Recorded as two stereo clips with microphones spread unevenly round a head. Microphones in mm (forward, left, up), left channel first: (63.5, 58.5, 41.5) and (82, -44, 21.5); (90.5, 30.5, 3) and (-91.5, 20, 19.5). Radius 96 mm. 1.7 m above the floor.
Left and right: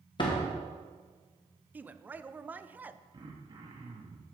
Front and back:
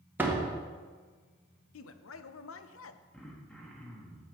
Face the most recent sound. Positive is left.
turn(degrees=-90)